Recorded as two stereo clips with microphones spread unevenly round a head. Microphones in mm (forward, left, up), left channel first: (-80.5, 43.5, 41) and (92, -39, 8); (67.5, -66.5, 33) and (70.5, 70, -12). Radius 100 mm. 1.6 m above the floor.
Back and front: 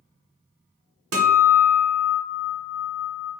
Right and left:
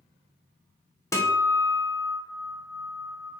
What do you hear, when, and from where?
1.1 s a guitar: 40° right, 1.2 m